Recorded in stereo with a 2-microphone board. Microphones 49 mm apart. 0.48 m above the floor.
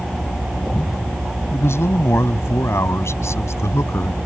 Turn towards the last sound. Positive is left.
turn(degrees=75)  # may be behind; listen again after turning